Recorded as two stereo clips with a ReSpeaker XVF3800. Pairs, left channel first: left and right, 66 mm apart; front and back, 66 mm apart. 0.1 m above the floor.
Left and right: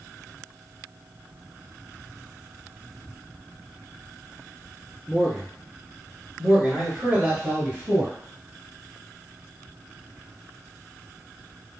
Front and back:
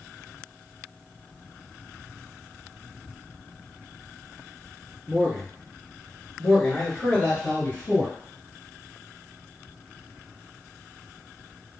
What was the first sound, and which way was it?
A man speaking, 145° right.